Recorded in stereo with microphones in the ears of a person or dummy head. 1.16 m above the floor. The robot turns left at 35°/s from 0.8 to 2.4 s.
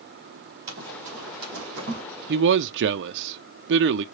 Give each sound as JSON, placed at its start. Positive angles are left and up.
{"t": 0.7, "sound": "running footsteps", "side_deg": -50, "distance_m": 1.8}
{"t": 2.3, "sound": "a man speaking", "side_deg": -50, "distance_m": 0.5}